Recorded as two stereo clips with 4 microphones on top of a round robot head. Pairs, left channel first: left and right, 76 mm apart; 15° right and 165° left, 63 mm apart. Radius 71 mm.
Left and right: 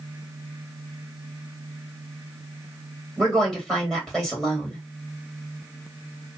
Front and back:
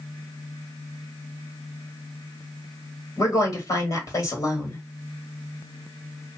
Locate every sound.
3.2 s a woman speaking: straight ahead, 2.0 m